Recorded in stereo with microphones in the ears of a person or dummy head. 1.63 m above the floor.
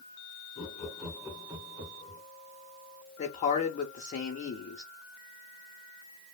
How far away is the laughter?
About 0.6 m.